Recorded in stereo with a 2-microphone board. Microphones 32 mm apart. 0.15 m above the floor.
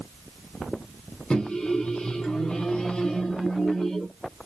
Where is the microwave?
25° left (ahead or behind), 0.9 m.